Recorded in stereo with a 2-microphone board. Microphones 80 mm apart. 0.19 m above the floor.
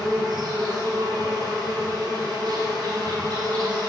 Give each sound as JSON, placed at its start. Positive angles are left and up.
{"t": 0.0, "sound": "an insect", "side_deg": -65, "distance_m": 1.4}